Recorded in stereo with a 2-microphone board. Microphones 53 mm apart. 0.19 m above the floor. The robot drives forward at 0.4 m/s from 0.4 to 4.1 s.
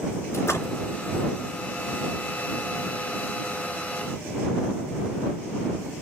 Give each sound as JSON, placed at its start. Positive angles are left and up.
{"t": 0.3, "sound": "a splash", "side_deg": 60, "distance_m": 3.0}